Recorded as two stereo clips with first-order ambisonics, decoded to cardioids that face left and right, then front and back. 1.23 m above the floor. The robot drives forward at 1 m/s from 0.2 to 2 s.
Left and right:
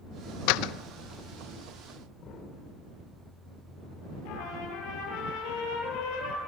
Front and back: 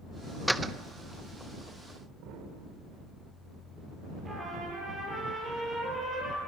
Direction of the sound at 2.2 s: 145° left.